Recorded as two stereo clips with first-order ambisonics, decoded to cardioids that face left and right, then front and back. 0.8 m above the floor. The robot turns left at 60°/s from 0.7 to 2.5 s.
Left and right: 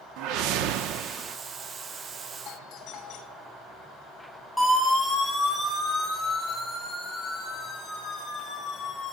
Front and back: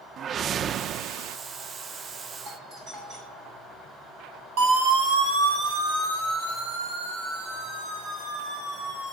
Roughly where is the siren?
Behind.